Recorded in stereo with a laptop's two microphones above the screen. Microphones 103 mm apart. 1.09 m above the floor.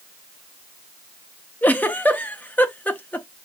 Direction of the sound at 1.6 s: 15° left (ahead or behind).